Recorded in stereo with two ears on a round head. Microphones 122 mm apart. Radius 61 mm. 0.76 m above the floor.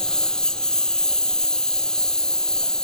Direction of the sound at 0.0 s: 5° left (ahead or behind).